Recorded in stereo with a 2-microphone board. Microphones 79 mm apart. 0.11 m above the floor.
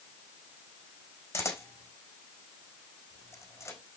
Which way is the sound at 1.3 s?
35° left (ahead or behind).